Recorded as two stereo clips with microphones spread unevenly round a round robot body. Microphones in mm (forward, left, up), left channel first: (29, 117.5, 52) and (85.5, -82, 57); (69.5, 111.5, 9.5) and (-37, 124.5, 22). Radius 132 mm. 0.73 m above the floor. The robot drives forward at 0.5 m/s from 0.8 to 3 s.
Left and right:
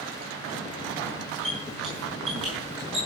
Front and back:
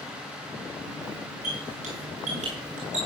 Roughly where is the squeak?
Behind.